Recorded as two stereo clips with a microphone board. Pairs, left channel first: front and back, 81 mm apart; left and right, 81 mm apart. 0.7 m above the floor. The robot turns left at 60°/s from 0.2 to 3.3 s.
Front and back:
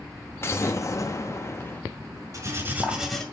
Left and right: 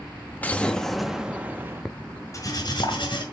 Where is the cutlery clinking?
140° left, 1.9 m; by 3.2 s 85° left, 1.9 m.